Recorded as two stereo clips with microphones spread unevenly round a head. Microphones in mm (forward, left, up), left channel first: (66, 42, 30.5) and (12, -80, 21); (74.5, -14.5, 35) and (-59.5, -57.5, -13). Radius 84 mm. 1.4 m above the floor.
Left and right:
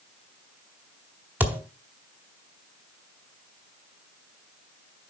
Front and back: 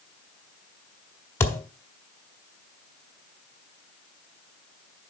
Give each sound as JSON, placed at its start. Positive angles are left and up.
{"t": 1.4, "sound": "a thud", "azimuth_deg": -35, "distance_m": 1.6}